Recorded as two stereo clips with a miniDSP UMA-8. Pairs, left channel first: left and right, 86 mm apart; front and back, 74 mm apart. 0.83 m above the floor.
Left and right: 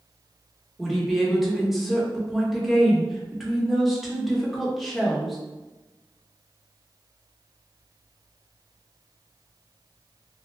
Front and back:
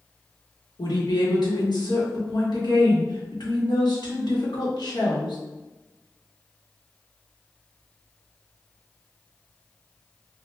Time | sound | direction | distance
0.8 | a woman speaking | straight ahead | 1.1 m